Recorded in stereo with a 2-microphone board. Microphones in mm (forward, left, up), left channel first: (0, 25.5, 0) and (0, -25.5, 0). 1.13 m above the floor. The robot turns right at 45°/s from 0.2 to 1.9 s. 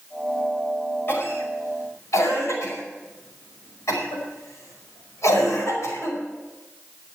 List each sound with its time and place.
1.1 s a cough: 55° left (ahead or behind), 5 m; by 6.2 s 90° left, 5 m